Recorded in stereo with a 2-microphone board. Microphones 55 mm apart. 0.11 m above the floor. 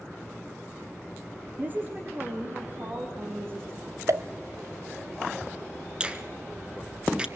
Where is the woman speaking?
30° right (ahead or behind), 3 m; by 4.0 s 40° right (ahead or behind), 6 m.